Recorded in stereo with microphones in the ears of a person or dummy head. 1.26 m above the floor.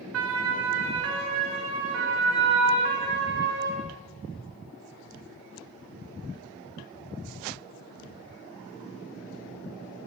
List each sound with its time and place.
0.1 s a siren: 70° right (ahead or behind), 4.5 m; by 3.8 s 50° right (ahead or behind), 8 m